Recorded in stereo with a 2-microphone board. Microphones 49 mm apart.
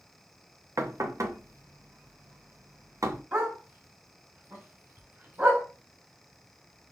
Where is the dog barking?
45° right (ahead or behind), 2 m.